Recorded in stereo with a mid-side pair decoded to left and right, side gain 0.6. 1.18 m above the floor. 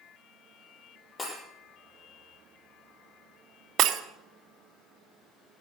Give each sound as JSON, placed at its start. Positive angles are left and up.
{"t": 1.2, "sound": "breaking glass", "azimuth_deg": 25, "distance_m": 6.5}
{"t": 3.8, "sound": "breaking glass", "azimuth_deg": -55, "distance_m": 1.3}